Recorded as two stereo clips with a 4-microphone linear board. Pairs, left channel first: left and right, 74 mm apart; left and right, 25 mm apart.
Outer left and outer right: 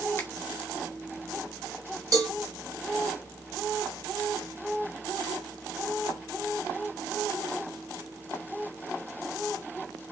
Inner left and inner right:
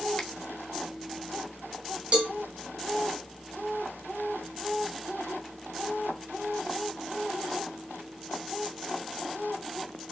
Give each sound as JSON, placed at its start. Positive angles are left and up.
{"t": 0.2, "sound": "a finger snap", "side_deg": 30, "distance_m": 1.2}
{"t": 2.1, "sound": "a cowbell", "side_deg": -50, "distance_m": 1.5}